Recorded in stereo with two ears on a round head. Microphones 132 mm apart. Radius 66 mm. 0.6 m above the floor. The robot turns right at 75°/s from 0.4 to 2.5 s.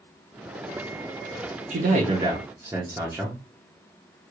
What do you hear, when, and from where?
1.7 s a man speaking: 80° right, 0.9 m; by 3.4 s 20° right, 0.9 m